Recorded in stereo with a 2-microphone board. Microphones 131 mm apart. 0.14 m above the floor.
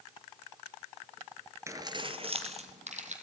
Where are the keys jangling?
20° right (ahead or behind), 1.3 m; by 3.1 s 65° right (ahead or behind), 3 m.